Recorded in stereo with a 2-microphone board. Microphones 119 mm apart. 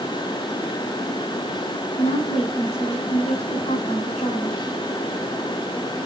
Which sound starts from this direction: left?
A woman speaking, at 1.9 s.